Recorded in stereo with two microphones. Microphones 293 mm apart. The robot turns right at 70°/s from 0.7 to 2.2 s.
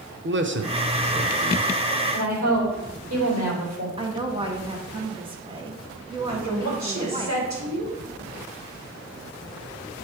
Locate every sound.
0.2 s a man speaking: 40° right (ahead or behind), 0.6 m; by 1.7 s 10° left (ahead or behind), 0.6 m
2.1 s a woman speaking: 65° right (ahead or behind), 4 m; by 3.9 s 60° right (ahead or behind), 4 m
4.0 s a woman speaking: 20° right (ahead or behind), 1.1 m
6.3 s a woman speaking: 70° right (ahead or behind), 2.5 m